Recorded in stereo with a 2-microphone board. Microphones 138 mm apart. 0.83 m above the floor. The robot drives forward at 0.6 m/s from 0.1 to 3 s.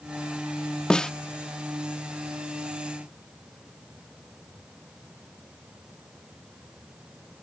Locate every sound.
0.9 s a snare drum: 5° left (ahead or behind)